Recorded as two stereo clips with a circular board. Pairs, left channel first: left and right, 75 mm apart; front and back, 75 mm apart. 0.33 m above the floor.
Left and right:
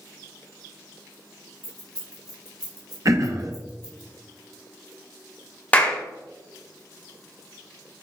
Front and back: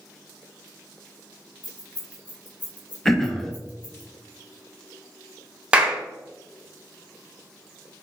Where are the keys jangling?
70° right, 1.3 m.